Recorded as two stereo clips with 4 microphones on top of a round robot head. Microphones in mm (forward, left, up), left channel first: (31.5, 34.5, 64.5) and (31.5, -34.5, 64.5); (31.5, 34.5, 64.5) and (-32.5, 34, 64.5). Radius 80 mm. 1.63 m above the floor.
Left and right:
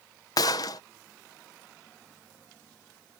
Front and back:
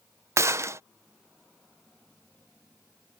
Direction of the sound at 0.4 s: 140° left.